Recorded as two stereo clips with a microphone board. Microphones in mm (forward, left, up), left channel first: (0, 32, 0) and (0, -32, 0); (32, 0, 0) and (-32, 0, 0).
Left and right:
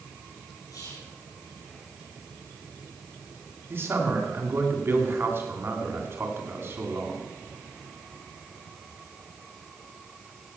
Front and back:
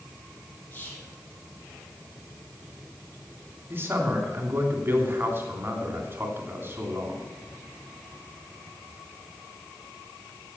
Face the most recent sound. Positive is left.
turn(degrees=-130)